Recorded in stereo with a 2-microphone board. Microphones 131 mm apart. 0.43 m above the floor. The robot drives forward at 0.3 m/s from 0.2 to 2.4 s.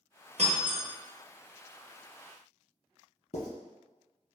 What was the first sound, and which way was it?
Breaking glass, 60° right (ahead or behind).